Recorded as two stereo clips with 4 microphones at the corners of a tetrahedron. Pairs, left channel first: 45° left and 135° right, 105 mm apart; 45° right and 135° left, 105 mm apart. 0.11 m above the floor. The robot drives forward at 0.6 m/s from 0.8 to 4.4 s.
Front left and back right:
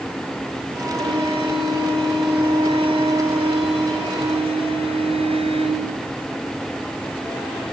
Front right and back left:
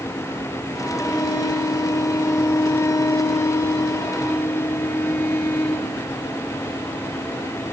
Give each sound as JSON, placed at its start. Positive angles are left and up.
{"t": 1.0, "sound": "a violin", "azimuth_deg": -105, "distance_m": 8.0}